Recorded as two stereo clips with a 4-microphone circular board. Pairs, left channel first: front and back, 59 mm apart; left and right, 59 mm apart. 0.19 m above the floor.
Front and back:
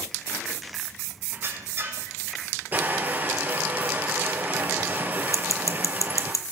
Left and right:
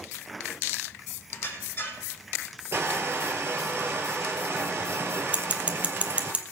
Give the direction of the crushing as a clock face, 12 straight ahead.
4 o'clock.